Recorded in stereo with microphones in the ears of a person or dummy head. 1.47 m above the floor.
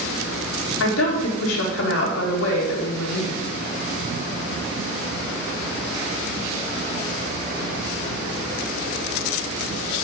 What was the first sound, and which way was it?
A woman speaking, 80° left.